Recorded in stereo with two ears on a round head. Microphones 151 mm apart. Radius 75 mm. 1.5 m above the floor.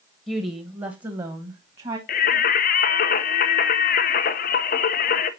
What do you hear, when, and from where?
0.3 s a woman speaking: 10° right (ahead or behind), 1.1 m; by 2.0 s 35° right (ahead or behind), 1.8 m
2.1 s singing: 55° left (ahead or behind), 0.8 m